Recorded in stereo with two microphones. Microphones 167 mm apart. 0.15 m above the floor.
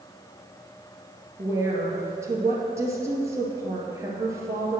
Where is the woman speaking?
20° right (ahead or behind), 2.5 m.